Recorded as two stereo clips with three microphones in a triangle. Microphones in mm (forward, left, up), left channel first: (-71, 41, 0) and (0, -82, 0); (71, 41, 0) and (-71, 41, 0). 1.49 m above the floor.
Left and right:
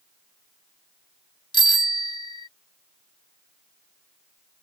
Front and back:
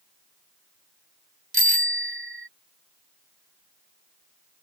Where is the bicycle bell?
175° left.